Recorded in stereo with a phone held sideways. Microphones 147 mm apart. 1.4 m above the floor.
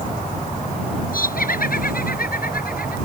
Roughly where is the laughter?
Left.